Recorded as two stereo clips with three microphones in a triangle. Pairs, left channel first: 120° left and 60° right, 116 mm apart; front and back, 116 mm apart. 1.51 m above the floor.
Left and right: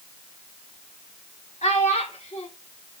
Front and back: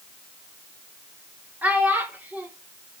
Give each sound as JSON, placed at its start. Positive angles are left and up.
{"t": 1.6, "sound": "a child speaking", "azimuth_deg": 105, "distance_m": 3.0}